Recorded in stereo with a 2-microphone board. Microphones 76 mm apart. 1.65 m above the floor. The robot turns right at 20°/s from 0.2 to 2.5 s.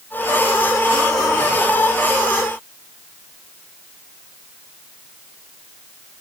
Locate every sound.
Only background noise.